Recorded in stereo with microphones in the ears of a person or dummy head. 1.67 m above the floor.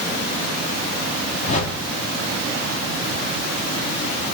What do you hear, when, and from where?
1.4 s a whoosh: 50° left (ahead or behind), 2.5 m